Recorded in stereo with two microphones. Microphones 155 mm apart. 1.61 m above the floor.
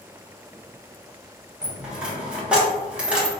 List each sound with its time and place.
1.6 s a dropped coin: 10° right (ahead or behind), 1.1 m